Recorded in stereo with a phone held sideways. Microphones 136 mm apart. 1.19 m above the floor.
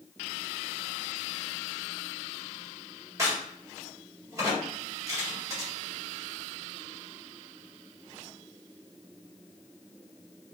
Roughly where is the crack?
Right.